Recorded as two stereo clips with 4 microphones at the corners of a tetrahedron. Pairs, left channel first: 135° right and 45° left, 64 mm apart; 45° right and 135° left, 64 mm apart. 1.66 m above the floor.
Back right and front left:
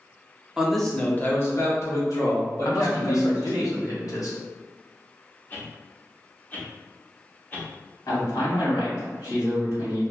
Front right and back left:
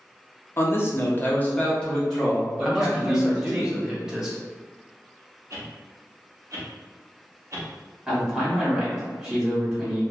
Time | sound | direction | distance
0.6 | a man speaking | 25° right | 0.6 m
2.6 | a man speaking | 145° right | 0.8 m
5.5 | a whoosh | 170° left | 0.7 m
8.1 | a man speaking | 140° right | 1.6 m